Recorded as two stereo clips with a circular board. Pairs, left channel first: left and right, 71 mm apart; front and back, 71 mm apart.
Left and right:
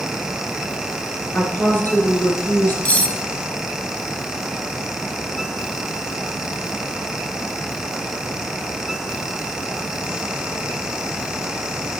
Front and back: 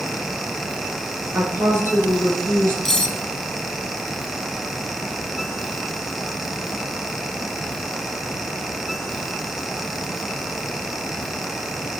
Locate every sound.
1.3 s a woman speaking: 140° left, 2.5 m
2.9 s cutlery clinking: 75° left, 0.7 m